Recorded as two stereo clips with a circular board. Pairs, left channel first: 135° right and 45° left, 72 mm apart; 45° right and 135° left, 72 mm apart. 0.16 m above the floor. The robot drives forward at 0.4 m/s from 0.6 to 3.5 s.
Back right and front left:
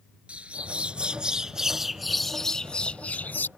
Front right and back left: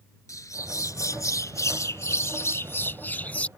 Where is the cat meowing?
I don't hear a cat meowing.